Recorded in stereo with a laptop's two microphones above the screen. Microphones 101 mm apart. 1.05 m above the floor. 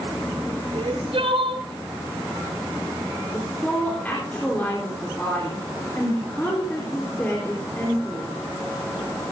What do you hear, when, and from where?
0.7 s crying: 75° right (ahead or behind), 2.5 m
3.3 s a woman speaking: 20° left (ahead or behind), 3.5 m